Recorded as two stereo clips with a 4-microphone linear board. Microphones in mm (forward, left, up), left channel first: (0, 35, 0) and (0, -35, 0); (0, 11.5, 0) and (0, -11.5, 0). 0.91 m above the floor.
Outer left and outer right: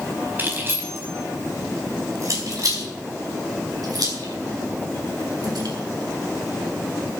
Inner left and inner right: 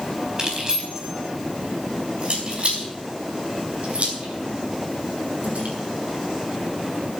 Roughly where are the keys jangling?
Right.